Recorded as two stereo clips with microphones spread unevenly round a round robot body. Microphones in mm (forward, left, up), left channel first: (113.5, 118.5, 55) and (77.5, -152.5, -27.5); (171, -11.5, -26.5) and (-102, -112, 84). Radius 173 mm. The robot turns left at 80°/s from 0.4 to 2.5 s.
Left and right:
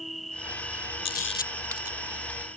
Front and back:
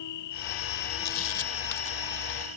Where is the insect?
5° right; by 2.6 s 175° right.